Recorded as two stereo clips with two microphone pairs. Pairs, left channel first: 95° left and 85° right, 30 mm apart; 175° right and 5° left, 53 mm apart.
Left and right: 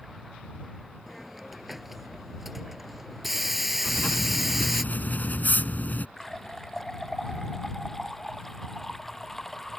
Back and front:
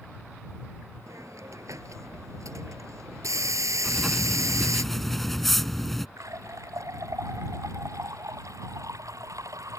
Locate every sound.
1.1 s a hiss: straight ahead
3.8 s writing: 100° left
6.2 s a running tap: 15° left